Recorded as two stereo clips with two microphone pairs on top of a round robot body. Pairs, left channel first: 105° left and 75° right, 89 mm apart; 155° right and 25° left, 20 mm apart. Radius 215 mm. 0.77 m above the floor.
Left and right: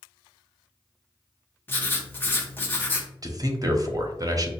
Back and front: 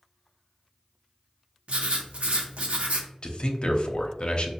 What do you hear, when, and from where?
1.7 s writing: 40° left, 0.7 m
3.2 s a man speaking: 120° right, 0.8 m